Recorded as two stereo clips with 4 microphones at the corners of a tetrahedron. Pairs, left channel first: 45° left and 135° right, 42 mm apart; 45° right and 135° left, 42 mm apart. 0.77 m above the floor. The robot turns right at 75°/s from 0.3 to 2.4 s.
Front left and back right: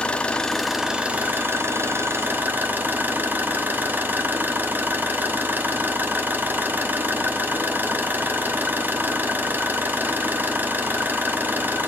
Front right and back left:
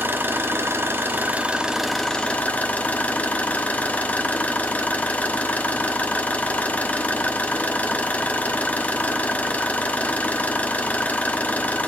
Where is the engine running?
105° left, 1.1 m; by 11.9 s 95° right, 1.1 m.